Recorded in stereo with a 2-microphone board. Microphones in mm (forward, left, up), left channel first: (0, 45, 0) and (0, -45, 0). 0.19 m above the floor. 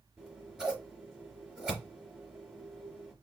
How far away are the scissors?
About 3 m.